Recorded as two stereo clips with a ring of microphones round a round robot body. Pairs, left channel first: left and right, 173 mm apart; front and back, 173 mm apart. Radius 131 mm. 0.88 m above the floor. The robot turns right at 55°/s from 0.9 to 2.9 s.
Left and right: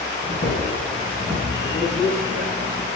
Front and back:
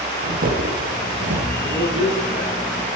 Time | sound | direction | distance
0.2 | footsteps | 140° left | 2 m
1.6 | a man speaking | 145° left | 5.5 m